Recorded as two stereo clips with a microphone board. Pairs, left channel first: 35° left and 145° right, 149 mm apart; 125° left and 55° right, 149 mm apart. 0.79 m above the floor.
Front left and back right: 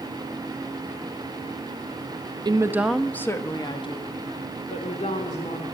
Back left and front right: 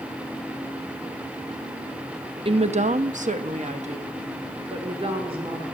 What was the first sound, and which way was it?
A woman speaking, 95° right.